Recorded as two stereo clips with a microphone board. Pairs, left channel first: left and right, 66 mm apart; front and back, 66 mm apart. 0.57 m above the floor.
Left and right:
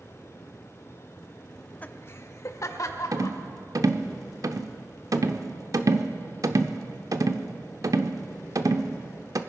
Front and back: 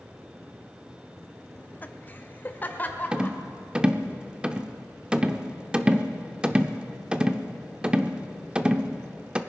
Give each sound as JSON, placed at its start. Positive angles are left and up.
{"t": 1.6, "sound": "laughter", "azimuth_deg": 5, "distance_m": 0.6}
{"t": 3.1, "sound": "a rattle", "azimuth_deg": -105, "distance_m": 0.7}